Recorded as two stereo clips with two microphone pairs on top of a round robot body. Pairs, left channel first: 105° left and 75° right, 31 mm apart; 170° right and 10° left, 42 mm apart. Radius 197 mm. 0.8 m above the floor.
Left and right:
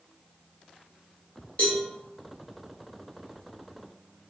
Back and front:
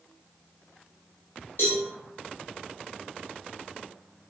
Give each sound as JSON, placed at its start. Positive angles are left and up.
{"t": 1.6, "sound": "a cowbell", "azimuth_deg": 155, "distance_m": 0.6}